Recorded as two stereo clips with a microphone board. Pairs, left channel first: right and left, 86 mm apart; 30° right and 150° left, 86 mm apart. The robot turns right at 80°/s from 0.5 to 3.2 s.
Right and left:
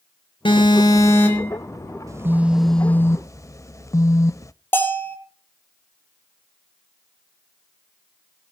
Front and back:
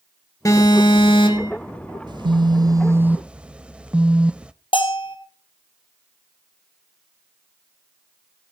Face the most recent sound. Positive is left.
turn(degrees=-25)